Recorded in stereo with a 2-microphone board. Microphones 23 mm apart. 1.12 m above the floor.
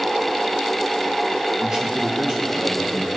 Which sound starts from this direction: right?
A man speaking, at 1.6 s.